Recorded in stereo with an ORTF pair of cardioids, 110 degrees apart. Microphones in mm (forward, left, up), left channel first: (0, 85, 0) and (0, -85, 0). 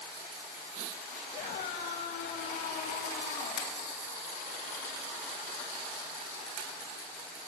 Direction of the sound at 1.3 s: 60° left.